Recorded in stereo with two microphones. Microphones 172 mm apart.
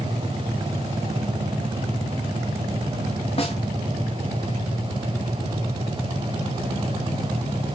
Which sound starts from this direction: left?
A snare drum, at 3.4 s.